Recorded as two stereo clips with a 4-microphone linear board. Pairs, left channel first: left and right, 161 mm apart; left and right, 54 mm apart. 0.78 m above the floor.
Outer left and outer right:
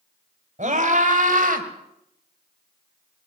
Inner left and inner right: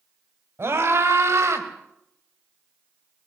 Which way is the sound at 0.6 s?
50° right (ahead or behind).